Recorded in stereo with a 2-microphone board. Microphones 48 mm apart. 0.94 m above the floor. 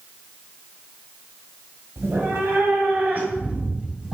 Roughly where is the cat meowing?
Right.